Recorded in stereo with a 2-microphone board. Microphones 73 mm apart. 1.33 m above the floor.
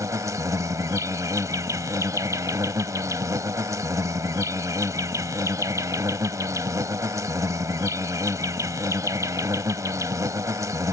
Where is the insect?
50° right (ahead or behind).